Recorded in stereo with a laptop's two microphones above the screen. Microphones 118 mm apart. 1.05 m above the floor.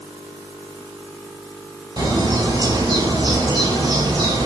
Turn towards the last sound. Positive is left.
turn(degrees=-40)  # may be behind; listen again after turning